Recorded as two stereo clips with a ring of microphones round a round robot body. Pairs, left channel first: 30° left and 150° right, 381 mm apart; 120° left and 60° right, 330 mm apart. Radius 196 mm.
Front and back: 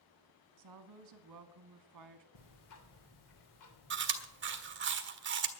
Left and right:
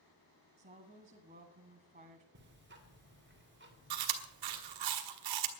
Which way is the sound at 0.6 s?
120° right.